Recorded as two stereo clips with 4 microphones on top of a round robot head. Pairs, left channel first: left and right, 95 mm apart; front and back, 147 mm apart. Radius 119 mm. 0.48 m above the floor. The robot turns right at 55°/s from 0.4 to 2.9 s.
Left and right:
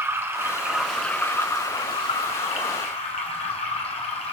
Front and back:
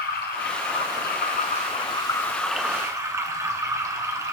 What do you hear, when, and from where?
0.0 s running water: 25° right, 1.4 m; by 4.3 s 110° left, 1.4 m